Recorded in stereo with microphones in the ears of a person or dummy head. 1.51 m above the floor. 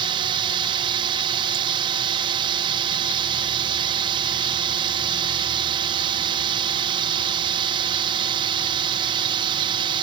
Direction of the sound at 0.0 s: 25° right (ahead or behind).